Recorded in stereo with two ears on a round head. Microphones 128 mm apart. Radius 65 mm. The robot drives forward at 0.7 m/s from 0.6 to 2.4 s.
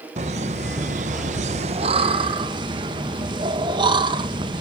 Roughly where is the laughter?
Right.